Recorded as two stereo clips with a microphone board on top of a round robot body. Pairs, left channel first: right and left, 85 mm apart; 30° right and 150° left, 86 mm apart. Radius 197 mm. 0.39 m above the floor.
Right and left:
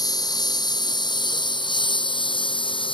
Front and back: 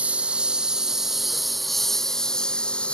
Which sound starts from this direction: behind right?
A lawn mower, at 0.0 s.